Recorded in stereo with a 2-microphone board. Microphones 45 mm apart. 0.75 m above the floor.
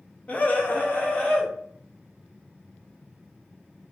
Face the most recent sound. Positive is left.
turn(degrees=30)  # may be behind; listen again after turning